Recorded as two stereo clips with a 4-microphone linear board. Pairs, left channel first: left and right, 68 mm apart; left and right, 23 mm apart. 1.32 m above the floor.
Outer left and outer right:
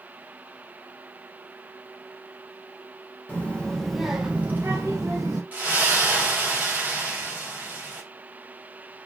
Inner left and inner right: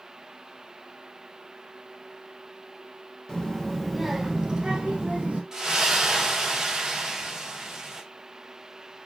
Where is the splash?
25° right (ahead or behind), 0.9 m.